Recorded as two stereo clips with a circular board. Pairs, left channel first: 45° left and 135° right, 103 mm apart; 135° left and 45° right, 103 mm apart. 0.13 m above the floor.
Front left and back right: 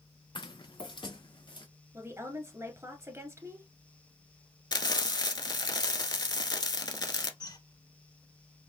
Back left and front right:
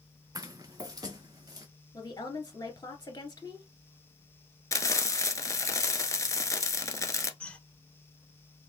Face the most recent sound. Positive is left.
turn(degrees=60)